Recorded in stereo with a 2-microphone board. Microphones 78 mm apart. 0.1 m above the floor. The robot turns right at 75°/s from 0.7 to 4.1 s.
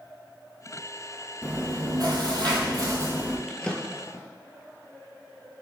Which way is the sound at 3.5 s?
Centre (ahead or behind).